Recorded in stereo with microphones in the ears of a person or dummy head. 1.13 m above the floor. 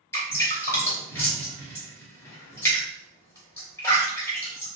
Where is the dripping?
15° left (ahead or behind), 1.0 m.